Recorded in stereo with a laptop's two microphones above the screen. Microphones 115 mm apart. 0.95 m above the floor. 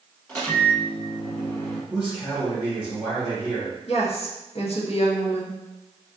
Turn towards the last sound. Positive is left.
turn(degrees=60)  # may be behind; listen again after turning